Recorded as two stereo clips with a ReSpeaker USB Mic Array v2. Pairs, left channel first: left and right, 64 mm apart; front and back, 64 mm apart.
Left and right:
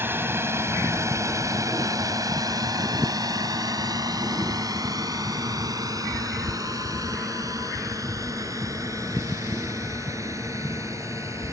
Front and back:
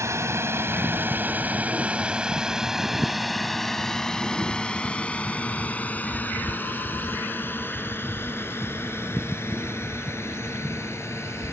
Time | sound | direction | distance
0.0 | a drone | 145° right | ?